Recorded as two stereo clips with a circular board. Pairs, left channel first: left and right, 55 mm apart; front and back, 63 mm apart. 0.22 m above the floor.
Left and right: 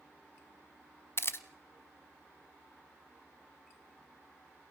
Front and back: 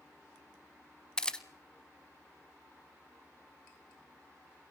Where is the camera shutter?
75° left, 0.9 m.